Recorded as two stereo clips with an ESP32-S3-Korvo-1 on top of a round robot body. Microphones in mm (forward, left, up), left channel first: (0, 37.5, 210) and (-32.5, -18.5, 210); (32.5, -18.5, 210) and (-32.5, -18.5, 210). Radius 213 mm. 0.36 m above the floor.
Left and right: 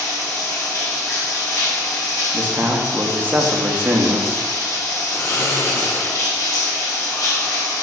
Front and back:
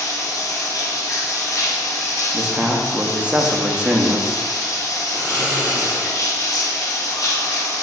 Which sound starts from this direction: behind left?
Snoring, at 5.1 s.